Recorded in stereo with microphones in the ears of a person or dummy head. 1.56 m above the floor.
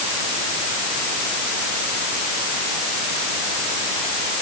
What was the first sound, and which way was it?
Only background noise.